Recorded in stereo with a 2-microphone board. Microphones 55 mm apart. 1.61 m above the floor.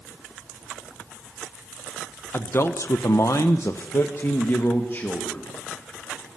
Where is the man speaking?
45° left (ahead or behind), 1.1 m; by 5.5 s 40° left (ahead or behind), 2.5 m.